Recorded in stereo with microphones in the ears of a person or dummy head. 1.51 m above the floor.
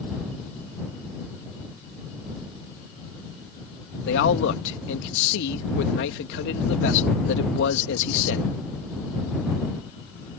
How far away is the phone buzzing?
No phone buzzing in this recording.